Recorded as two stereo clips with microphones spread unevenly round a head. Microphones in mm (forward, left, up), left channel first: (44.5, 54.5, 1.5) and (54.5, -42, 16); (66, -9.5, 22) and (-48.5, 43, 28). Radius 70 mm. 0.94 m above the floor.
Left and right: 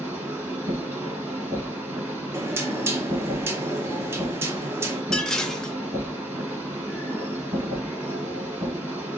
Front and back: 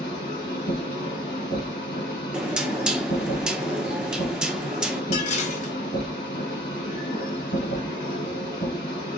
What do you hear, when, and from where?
0.0 s a machine running: 25° right, 1.8 m
2.3 s knocking: 125° right, 0.5 m
5.1 s dishes clattering: 10° left, 0.7 m